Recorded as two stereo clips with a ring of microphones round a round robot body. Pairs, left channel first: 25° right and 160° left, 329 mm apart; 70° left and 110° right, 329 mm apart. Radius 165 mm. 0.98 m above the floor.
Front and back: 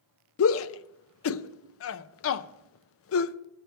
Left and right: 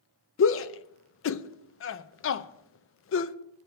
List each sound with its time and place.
0.4 s a shout: 20° left, 0.6 m